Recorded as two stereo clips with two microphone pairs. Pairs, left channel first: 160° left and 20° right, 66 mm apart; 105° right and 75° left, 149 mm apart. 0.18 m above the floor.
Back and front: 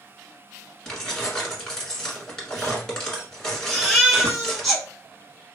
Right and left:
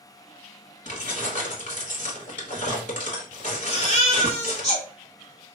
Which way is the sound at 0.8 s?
125° right.